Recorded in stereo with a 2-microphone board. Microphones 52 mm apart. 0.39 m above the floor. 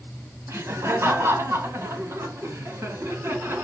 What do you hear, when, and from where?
0.5 s laughter: 60° right (ahead or behind), 2.5 m; by 3.6 s 55° right (ahead or behind), 4 m